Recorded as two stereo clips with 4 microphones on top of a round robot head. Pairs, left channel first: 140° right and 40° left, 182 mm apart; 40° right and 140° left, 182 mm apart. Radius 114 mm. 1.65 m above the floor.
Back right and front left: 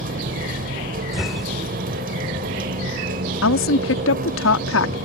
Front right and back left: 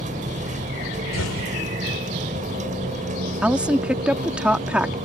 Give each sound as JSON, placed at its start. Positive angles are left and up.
{"t": 0.0, "sound": "a vehicle", "azimuth_deg": 85}
{"t": 1.1, "sound": "an explosion", "azimuth_deg": -45}
{"t": 3.4, "sound": "a woman speaking", "azimuth_deg": -135}